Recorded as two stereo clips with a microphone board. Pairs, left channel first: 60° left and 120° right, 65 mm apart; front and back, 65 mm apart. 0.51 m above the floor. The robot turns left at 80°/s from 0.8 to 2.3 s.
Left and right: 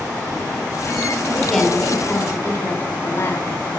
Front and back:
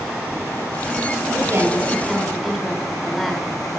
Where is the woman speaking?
170° left, 1.9 m; by 3.5 s 90° left, 1.9 m.